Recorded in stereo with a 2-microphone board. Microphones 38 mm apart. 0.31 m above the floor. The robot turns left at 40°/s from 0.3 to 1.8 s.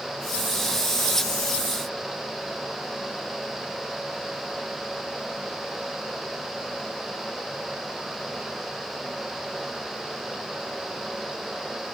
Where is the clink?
I don't hear a clink.